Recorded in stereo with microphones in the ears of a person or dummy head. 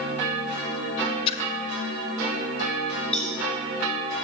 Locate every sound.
1.3 s a splash: 35° left (ahead or behind), 0.7 m
3.1 s a cowbell: 5° left (ahead or behind), 3 m